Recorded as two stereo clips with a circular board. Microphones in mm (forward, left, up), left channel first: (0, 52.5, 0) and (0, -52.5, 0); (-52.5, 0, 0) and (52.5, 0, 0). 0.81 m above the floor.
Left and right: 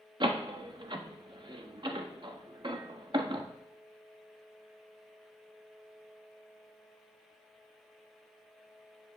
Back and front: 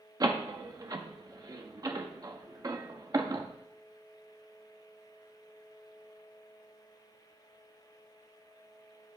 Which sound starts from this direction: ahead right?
A door slam, at 0.2 s.